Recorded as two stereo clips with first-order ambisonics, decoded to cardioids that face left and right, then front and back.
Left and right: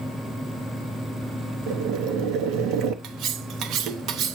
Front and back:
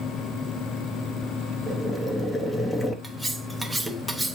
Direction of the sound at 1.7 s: 80° right.